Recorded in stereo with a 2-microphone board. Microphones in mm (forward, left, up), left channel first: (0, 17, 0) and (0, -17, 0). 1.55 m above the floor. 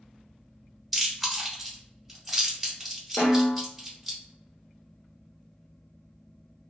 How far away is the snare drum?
About 1.0 m.